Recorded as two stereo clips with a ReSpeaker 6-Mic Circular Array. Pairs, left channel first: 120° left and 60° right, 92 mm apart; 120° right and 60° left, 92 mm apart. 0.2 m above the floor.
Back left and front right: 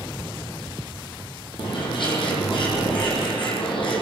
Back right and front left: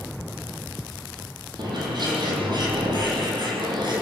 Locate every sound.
1.6 s a bird: 95° left, 8 m